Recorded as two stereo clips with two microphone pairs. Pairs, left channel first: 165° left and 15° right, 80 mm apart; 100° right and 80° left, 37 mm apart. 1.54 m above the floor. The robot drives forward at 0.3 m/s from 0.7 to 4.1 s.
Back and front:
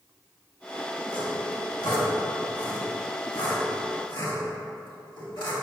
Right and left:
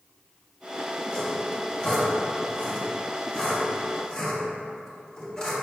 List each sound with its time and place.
1.1 s sawing: 170° right, 1.6 m; by 5.5 s 175° right, 2.5 m